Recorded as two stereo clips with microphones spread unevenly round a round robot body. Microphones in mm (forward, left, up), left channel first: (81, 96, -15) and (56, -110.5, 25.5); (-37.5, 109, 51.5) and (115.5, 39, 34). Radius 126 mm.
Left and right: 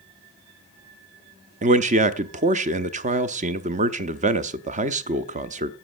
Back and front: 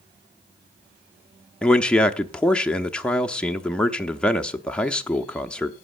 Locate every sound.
1.6 s a man speaking: 115° right, 0.7 m